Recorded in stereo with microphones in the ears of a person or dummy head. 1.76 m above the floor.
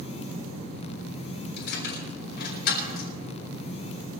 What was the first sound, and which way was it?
Keys jangling, 65° left (ahead or behind).